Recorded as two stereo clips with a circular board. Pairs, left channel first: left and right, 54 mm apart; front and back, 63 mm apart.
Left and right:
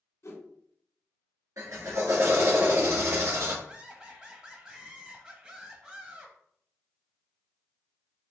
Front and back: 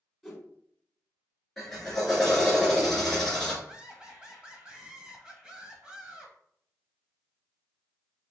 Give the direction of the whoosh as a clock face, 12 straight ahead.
9 o'clock.